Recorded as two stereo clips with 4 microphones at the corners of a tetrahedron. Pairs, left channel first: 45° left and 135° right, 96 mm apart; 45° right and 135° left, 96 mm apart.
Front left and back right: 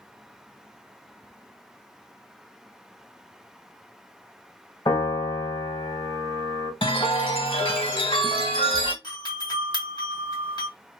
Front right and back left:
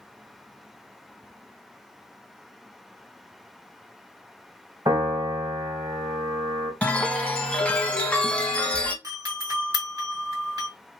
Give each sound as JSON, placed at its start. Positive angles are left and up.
{"t": 4.8, "sound": "a piano", "azimuth_deg": 85, "distance_m": 2.0}
{"t": 6.8, "sound": "a chime", "azimuth_deg": 35, "distance_m": 0.9}
{"t": 9.0, "sound": "a doorbell", "azimuth_deg": 85, "distance_m": 2.5}